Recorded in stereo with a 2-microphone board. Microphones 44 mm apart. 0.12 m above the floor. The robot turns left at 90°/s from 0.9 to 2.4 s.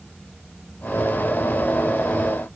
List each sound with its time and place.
Only background noise.